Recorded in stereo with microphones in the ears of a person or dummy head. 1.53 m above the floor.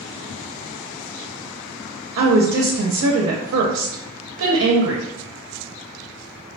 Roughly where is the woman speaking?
Right.